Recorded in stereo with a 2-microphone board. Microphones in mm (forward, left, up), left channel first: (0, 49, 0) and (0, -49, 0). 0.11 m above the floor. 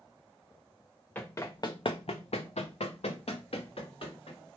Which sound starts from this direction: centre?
Running footsteps, at 1.1 s.